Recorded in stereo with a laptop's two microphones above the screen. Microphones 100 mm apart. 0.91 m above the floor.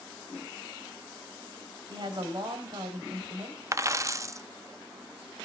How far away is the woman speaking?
About 4 m.